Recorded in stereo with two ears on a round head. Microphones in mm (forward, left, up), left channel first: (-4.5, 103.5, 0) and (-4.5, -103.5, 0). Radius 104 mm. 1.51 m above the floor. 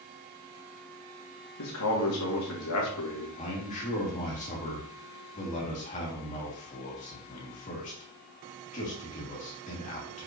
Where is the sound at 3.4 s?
30° left (ahead or behind), 2.5 m.